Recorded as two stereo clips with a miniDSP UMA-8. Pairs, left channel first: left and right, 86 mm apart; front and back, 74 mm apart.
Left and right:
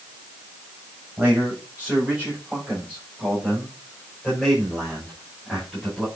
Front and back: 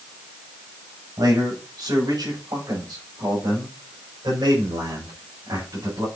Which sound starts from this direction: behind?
A man speaking, at 1.2 s.